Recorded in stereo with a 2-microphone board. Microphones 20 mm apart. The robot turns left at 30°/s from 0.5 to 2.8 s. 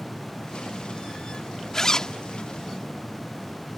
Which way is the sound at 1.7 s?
25° left (ahead or behind).